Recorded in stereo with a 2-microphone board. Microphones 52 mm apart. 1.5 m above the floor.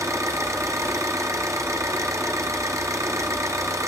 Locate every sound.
0.0 s an engine running: 85° right, 0.8 m